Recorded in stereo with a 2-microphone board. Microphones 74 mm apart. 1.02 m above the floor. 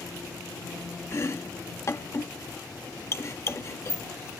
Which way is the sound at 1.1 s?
40° left (ahead or behind).